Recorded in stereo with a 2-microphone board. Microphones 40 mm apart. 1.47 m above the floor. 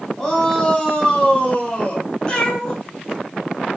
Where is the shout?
15° left (ahead or behind), 3.5 m; by 2.1 s 35° left (ahead or behind), 3 m.